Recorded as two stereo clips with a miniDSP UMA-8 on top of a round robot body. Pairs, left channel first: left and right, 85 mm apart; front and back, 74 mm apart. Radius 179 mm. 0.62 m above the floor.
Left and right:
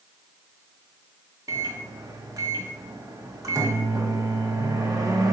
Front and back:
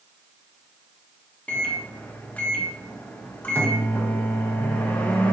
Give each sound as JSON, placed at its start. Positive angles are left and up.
{"t": 1.5, "sound": "a microwave", "azimuth_deg": -65, "distance_m": 0.9}